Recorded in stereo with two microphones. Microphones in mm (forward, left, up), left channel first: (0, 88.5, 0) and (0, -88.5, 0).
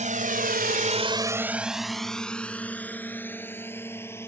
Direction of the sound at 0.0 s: 40° right (ahead or behind).